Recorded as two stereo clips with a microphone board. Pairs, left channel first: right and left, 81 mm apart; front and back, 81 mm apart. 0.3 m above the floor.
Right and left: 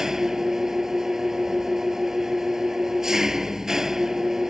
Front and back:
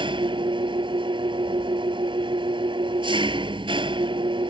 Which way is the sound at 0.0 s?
175° left.